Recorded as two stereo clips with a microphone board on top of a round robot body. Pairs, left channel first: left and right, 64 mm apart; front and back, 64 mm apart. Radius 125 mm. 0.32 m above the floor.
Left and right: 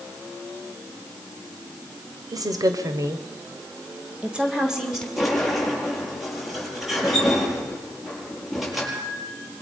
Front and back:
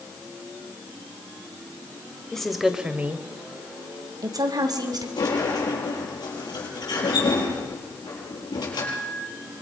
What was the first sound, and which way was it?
A woman speaking, 80° right.